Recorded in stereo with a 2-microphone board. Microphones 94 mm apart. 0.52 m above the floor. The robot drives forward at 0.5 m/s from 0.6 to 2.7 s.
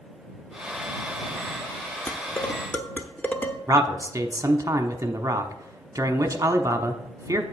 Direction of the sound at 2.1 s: 25° left (ahead or behind).